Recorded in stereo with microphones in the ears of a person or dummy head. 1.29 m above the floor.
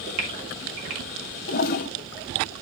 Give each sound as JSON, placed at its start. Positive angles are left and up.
{"t": 0.2, "sound": "a gasp", "side_deg": -35, "distance_m": 3.0}
{"t": 1.5, "sound": "a toilet flushing", "side_deg": 50, "distance_m": 0.6}